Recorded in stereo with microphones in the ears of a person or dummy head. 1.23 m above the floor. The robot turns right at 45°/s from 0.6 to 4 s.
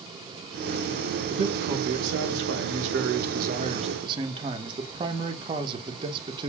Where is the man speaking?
150° right, 0.9 m; by 6.5 s 30° right, 0.9 m.